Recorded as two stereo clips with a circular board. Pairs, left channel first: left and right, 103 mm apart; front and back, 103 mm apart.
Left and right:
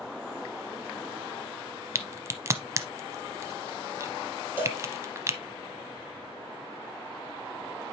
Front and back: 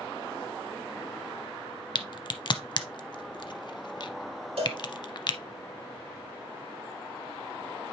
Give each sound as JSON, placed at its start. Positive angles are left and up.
{"t": 1.9, "sound": "a crack", "azimuth_deg": -35, "distance_m": 0.7}
{"t": 4.6, "sound": "a cowbell", "azimuth_deg": -160, "distance_m": 5.5}